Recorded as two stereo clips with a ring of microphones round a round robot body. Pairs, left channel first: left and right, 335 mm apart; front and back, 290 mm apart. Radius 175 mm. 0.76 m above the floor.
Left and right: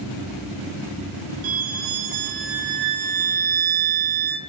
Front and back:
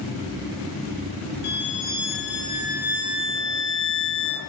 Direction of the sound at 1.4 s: 60° right.